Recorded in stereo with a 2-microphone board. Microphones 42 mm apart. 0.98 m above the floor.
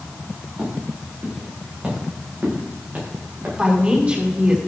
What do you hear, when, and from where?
0.6 s footsteps: 25° right (ahead or behind), 9 m; by 3.5 s 40° right (ahead or behind), 10 m
3.6 s a woman speaking: 30° right (ahead or behind), 6.5 m